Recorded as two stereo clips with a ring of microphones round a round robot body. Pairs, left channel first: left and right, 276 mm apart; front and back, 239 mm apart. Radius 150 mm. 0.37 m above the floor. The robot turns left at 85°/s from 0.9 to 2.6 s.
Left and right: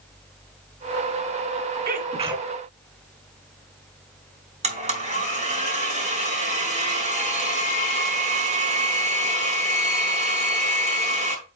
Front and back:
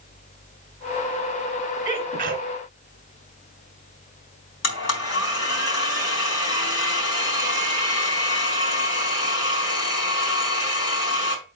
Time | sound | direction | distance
1.9 | a sneeze | 115° right | 1.7 m
4.6 | a blender | 25° right | 3.5 m